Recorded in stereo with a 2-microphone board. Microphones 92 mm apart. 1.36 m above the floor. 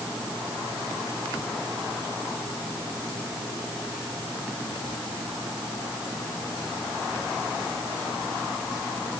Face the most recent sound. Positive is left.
No sound to turn to.